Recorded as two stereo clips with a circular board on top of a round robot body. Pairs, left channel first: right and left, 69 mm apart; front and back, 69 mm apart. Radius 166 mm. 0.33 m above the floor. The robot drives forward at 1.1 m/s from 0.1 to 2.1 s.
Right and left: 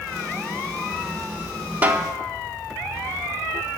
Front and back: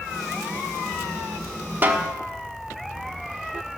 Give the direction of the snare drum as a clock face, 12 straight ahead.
7 o'clock.